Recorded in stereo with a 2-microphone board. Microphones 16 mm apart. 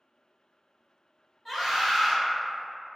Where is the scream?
5° left (ahead or behind), 1.9 m.